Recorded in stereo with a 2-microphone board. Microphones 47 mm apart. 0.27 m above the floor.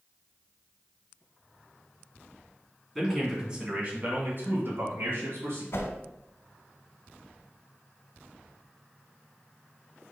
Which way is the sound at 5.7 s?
65° left (ahead or behind).